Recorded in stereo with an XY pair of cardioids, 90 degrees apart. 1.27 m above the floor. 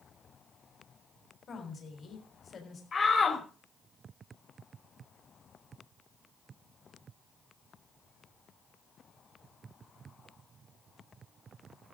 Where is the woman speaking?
55° left, 3.5 m.